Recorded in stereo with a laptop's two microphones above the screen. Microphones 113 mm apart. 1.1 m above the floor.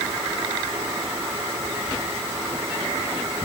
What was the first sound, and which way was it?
Only background noise.